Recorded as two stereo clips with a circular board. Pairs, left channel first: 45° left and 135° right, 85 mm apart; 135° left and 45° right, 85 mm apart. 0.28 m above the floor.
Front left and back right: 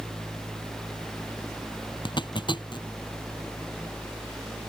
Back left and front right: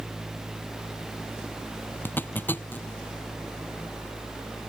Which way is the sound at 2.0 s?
70° left.